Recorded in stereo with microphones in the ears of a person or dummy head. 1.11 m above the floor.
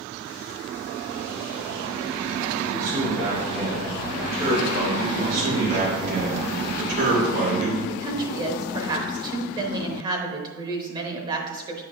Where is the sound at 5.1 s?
50° right (ahead or behind), 3.5 m.